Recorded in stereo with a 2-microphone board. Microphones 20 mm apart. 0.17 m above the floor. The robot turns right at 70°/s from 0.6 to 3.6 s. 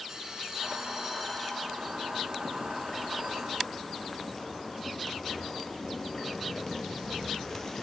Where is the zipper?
25° left (ahead or behind), 0.9 m; by 7.8 s 15° left (ahead or behind), 0.9 m.